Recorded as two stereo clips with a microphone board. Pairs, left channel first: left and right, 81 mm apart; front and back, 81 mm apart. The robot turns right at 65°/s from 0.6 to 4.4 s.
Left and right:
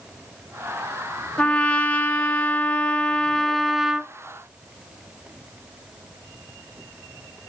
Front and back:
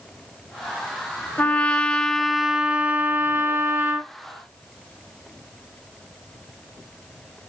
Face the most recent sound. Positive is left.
turn(degrees=-130)